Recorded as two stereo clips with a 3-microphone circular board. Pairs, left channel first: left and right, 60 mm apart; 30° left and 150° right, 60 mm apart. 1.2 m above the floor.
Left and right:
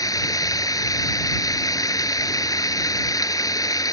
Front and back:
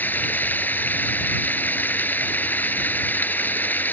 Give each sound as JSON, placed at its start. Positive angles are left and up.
{"t": 0.0, "sound": "running water", "azimuth_deg": 90}